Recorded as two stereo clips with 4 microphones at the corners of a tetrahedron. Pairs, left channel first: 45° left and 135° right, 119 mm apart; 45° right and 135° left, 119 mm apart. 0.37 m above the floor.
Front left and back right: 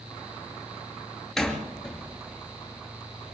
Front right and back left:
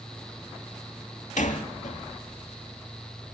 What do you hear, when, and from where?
1.4 s a door slam: 40° right, 5 m